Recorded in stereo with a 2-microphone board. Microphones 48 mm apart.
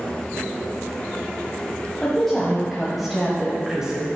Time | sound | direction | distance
2.0 | a woman speaking | 10° left (ahead or behind) | 1.7 m